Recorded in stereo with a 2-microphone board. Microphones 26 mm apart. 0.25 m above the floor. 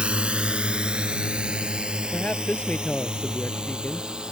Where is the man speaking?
50° left (ahead or behind).